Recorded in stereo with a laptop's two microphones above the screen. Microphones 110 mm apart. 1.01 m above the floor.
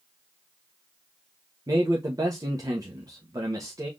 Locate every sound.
1.7 s a man speaking: 35° right (ahead or behind), 1.0 m